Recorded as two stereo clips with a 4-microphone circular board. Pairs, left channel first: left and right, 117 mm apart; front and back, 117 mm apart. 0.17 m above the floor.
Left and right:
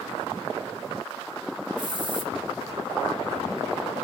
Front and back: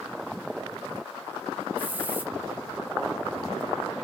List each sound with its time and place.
1.8 s a hiss: 110° right, 1.3 m